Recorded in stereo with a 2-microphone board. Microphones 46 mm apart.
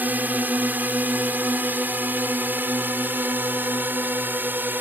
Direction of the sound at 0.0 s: 40° right (ahead or behind).